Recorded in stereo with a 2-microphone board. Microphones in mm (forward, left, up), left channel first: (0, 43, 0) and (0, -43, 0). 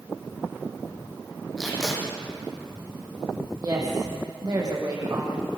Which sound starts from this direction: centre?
Tape being pulled, at 1.6 s.